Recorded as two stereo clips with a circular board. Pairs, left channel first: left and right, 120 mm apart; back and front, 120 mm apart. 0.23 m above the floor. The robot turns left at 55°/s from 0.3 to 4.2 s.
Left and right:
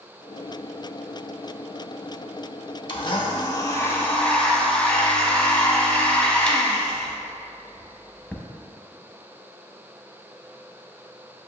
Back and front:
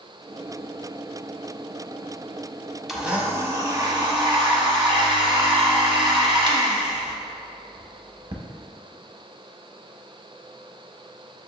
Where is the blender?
85° left, 0.5 m; by 8.4 s 15° left, 0.5 m.